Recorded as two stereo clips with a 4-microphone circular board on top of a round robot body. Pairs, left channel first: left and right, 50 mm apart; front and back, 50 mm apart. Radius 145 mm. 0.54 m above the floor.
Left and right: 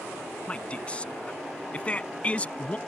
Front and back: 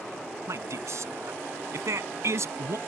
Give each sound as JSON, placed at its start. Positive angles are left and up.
{"t": 0.5, "sound": "a man speaking", "azimuth_deg": 155}